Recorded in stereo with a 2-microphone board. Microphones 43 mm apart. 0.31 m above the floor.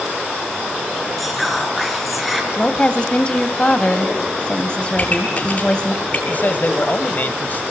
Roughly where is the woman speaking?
Left.